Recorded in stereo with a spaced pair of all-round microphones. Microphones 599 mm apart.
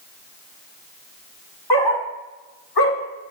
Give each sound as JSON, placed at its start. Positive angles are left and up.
{"t": 1.7, "sound": "a dog barking", "side_deg": 40, "distance_m": 1.9}